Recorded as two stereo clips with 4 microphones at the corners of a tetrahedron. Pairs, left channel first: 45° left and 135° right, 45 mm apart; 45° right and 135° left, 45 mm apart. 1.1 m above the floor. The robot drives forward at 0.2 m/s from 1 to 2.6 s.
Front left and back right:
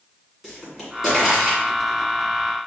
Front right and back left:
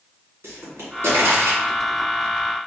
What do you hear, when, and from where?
0.4 s a pop: 140° left, 2 m; by 1.6 s 145° left, 2.5 m